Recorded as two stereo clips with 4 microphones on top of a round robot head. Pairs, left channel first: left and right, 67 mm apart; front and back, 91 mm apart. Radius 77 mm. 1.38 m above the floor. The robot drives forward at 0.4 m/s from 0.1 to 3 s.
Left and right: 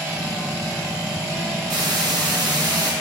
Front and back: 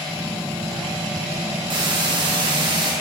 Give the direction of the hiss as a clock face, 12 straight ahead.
4 o'clock.